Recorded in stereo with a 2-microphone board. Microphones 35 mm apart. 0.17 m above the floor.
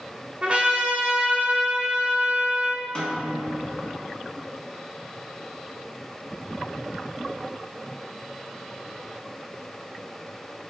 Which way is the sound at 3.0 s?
25° left (ahead or behind).